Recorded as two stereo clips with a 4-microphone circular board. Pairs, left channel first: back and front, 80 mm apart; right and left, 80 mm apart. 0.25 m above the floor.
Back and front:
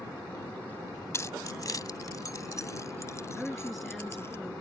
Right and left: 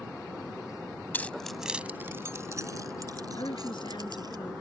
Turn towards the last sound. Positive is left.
turn(degrees=-90)